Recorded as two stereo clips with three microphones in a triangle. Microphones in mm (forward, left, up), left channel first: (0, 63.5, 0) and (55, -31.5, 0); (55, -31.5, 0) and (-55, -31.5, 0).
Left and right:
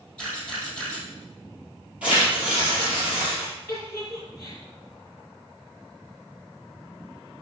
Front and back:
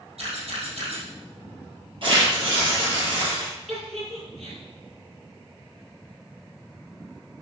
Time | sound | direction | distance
0.2 | a camera shutter | 160° right | 4 m
2.0 | tearing paper | 140° right | 5 m
3.7 | a giggle | 170° right | 4 m